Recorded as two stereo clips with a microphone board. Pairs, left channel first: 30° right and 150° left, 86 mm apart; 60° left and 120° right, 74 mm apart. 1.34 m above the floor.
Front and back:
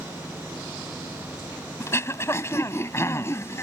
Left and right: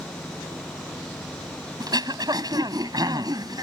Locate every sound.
1.8 s throat clearing: 90° right